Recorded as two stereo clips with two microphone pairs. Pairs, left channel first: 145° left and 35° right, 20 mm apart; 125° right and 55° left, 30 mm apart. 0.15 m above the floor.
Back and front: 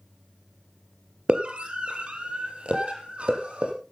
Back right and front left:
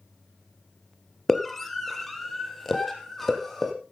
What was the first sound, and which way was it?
A scream, 40° right.